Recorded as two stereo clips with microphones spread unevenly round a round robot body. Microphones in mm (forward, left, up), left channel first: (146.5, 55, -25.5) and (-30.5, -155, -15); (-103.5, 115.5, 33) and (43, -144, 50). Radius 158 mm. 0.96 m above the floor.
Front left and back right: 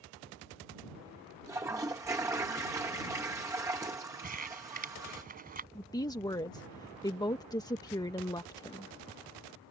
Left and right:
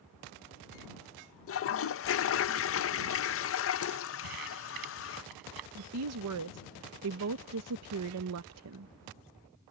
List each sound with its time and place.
1.5 s a toilet flushing: 150° left
4.2 s crumpling: 70° right
5.8 s a woman speaking: 25° right